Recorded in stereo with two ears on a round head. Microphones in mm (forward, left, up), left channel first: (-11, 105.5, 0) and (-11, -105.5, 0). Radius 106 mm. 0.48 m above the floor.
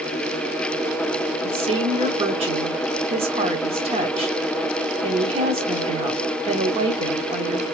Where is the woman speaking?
25° right (ahead or behind), 1.0 m.